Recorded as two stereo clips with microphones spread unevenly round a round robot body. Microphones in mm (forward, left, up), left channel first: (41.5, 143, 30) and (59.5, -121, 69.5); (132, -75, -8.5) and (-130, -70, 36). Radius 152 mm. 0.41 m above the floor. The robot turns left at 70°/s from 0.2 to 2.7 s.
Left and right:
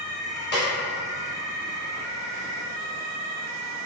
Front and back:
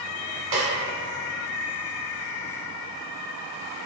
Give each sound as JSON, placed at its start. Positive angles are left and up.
{"t": 0.5, "sound": "a snare drum", "azimuth_deg": 150, "distance_m": 1.3}